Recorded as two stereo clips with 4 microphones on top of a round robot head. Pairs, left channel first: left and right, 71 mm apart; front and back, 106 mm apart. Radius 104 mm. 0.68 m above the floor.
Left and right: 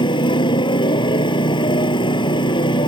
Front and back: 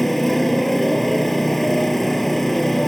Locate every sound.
0.0 s a motorcycle: 90° left